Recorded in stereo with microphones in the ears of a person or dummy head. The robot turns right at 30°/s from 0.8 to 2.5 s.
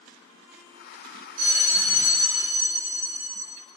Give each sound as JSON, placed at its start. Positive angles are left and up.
{"t": 1.4, "sound": "a bell", "azimuth_deg": -125, "distance_m": 3.0}